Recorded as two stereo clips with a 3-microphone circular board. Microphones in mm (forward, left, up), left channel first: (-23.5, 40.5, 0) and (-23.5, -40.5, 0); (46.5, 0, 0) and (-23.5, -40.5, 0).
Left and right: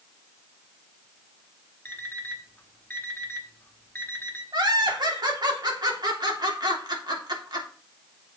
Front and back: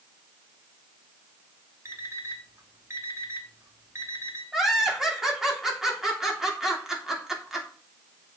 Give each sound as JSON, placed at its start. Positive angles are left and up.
{"t": 1.9, "sound": "an alarm clock", "azimuth_deg": 160, "distance_m": 1.8}
{"t": 4.5, "sound": "laughter", "azimuth_deg": -65, "distance_m": 3.0}